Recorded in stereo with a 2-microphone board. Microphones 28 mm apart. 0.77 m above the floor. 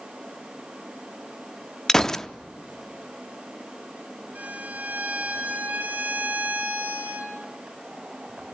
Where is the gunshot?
15° left (ahead or behind), 0.5 m.